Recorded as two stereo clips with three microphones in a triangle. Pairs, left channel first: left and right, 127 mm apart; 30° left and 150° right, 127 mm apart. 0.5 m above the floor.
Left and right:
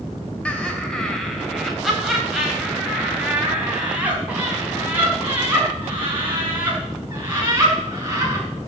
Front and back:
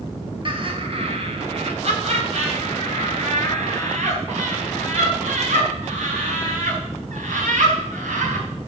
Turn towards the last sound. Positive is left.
turn(degrees=-160)